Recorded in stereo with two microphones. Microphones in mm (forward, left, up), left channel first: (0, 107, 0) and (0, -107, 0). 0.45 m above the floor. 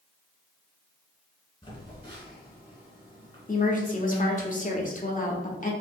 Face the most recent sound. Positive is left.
turn(degrees=40)  # may be behind; listen again after turning